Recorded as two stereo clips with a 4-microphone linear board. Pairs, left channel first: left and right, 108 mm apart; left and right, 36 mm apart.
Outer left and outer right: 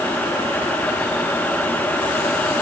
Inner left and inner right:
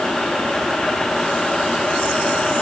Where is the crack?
I don't hear a crack.